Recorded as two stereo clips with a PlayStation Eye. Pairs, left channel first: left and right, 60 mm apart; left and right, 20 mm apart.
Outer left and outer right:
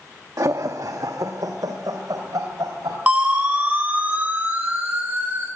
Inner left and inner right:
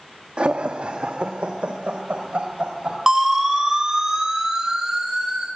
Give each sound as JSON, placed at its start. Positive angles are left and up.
{"t": 0.4, "sound": "laughter", "side_deg": -70, "distance_m": 1.2}
{"t": 3.1, "sound": "a siren", "side_deg": -25, "distance_m": 4.5}